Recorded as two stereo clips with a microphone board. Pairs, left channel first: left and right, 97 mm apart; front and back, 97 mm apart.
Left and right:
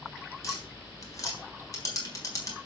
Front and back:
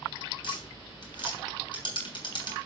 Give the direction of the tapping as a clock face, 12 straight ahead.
11 o'clock.